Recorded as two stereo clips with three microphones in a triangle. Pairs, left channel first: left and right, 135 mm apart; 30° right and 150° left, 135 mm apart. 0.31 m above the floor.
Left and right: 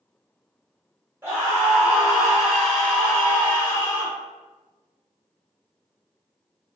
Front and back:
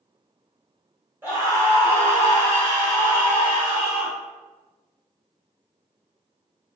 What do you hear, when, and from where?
1.2 s a scream: 150° right, 1.7 m; by 4.1 s 80° left, 1.6 m